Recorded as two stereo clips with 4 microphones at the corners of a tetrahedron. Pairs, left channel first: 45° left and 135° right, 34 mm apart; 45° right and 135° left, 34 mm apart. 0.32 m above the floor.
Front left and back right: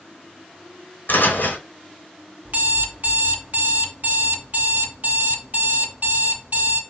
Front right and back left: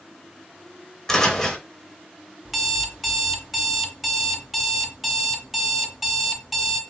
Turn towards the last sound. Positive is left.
turn(degrees=-140)